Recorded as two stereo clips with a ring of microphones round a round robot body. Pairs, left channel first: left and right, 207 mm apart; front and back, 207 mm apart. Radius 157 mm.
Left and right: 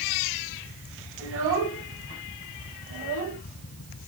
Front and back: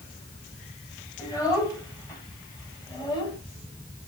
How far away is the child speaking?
About 5 m.